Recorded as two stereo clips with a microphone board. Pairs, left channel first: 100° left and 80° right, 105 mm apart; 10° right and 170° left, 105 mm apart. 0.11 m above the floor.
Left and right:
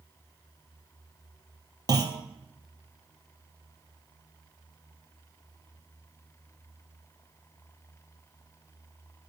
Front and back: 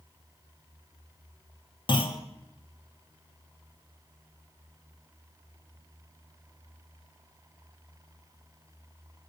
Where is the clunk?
40° right, 0.6 m.